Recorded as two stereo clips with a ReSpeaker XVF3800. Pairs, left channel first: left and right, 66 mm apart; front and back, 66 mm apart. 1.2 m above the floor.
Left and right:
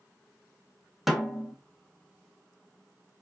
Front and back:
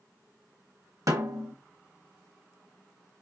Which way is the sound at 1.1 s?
175° right.